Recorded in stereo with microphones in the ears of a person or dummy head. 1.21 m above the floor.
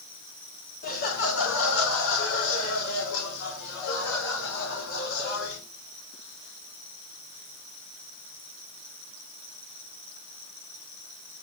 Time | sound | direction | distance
0.8 | laughter | 45° left (ahead or behind) | 1.8 m